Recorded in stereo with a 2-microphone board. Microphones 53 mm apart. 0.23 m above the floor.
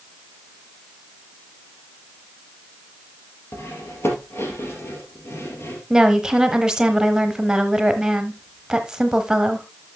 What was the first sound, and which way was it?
Cutlery clinking, 55° left (ahead or behind).